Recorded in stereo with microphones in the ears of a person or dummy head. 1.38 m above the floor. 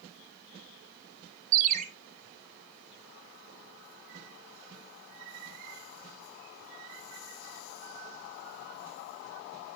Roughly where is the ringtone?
Right.